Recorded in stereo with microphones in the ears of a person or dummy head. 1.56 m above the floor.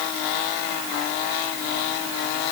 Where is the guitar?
I don't hear a guitar.